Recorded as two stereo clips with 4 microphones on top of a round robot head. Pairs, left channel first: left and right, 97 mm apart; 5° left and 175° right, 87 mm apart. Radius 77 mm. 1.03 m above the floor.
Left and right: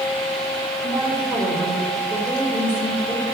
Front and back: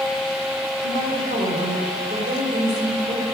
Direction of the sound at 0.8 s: 165° right.